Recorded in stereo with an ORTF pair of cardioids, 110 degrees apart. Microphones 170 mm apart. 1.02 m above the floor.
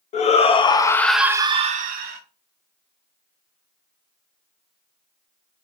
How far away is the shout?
About 1.2 m.